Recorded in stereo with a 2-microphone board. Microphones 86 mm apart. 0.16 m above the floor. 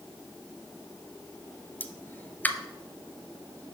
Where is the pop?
20° left (ahead or behind), 0.5 m.